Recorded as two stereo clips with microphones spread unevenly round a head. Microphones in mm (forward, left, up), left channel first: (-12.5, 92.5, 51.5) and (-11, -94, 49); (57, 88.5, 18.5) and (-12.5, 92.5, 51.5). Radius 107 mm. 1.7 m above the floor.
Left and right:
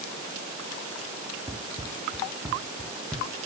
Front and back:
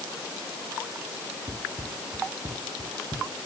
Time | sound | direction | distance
1.5 | running footsteps | 165° right | ?